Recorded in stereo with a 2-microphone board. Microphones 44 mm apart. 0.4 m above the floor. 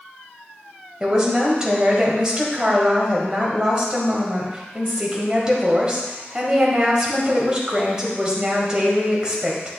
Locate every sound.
1.0 s a woman speaking: 15° right (ahead or behind), 1.9 m